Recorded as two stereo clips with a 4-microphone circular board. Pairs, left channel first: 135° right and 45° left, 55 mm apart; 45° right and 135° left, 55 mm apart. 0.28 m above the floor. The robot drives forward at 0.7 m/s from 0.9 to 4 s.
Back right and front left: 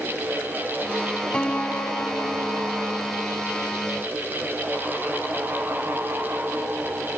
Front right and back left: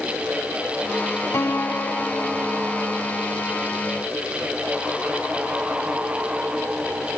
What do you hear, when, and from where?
1.3 s a piano: 65° right; by 3.2 s 145° right